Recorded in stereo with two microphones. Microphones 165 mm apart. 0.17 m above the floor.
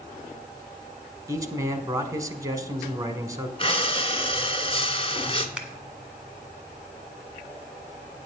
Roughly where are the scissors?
Centre.